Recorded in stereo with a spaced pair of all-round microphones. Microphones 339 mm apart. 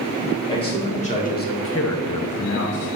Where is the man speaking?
15° left (ahead or behind), 2.5 m; by 2.9 s 25° left (ahead or behind), 1.3 m.